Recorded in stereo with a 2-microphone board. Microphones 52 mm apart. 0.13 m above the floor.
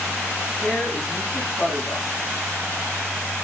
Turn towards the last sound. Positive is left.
turn(degrees=30)  # may be behind; listen again after turning